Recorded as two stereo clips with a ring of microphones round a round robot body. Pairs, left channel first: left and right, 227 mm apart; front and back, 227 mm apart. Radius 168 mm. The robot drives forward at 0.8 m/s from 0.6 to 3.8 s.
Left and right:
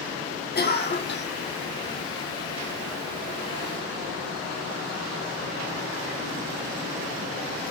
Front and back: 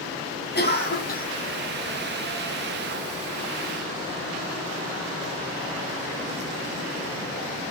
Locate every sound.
0.6 s a cough: 45° left, 4.5 m; by 1.3 s 50° left, 4 m